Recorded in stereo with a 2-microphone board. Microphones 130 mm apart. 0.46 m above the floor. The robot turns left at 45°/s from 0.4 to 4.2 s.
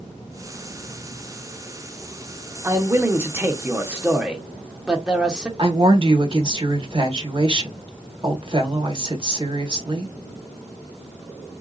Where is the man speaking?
20° right (ahead or behind), 0.8 m; by 5.5 s 5° right (ahead or behind), 0.8 m.